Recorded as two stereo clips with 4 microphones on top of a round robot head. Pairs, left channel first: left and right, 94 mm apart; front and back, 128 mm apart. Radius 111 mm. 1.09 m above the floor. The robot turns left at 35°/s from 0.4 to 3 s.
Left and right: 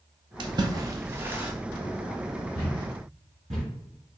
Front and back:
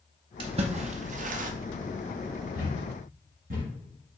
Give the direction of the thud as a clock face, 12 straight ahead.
4 o'clock.